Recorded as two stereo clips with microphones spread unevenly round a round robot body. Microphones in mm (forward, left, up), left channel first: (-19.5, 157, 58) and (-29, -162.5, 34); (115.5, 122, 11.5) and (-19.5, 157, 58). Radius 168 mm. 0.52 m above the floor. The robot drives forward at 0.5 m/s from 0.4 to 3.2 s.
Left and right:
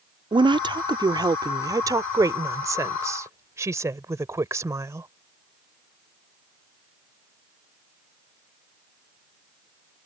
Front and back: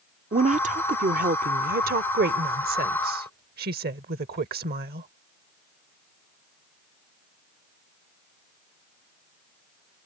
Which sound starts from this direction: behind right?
A woman speaking, at 0.3 s.